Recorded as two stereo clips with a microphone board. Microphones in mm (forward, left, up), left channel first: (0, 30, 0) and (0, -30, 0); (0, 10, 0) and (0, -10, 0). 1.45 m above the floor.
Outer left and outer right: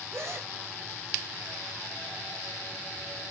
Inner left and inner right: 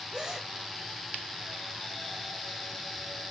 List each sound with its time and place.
0.1 s a gasp: 45° right (ahead or behind), 4.5 m